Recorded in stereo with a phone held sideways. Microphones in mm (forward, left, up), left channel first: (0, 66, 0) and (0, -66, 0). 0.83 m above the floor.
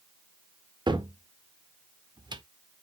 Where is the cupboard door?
35° right (ahead or behind), 0.6 m.